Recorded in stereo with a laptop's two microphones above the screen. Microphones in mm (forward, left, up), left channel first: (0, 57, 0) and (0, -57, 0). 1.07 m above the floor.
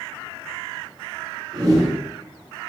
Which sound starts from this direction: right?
A whoosh, at 1.5 s.